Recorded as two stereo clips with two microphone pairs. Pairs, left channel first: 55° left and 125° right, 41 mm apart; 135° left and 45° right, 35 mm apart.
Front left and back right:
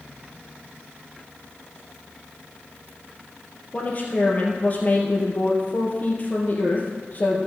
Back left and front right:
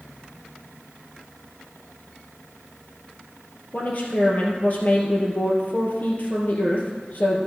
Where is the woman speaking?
100° left, 2.5 m.